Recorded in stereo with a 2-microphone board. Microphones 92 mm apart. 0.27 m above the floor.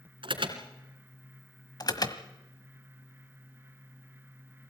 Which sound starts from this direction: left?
An alarm, at 1.8 s.